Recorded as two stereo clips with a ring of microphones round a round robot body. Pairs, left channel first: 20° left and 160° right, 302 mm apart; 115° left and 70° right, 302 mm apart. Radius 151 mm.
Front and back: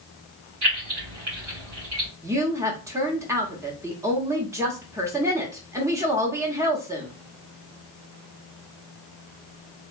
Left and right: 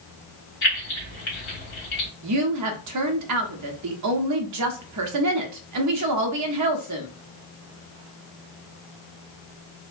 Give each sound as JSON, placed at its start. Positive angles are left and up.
{"t": 0.6, "sound": "keys jangling", "azimuth_deg": 165, "distance_m": 2.0}
{"t": 2.2, "sound": "a woman speaking", "azimuth_deg": -80, "distance_m": 0.7}